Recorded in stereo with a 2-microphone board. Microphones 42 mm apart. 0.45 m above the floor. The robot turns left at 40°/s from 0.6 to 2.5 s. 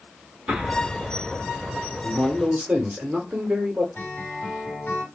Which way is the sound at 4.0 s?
55° left (ahead or behind).